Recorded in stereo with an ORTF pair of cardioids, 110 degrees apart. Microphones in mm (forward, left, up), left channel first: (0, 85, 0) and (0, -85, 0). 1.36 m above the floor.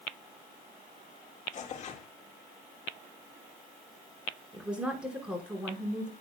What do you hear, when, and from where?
1.5 s tearing paper: 45° left, 1.8 m
4.5 s a woman speaking: 5° right, 5 m